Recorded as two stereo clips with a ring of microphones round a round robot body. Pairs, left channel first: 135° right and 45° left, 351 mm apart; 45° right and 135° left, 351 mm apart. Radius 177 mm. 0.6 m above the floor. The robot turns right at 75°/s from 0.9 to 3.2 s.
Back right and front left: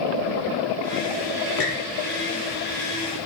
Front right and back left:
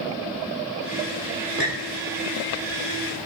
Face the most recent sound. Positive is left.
turn(degrees=-45)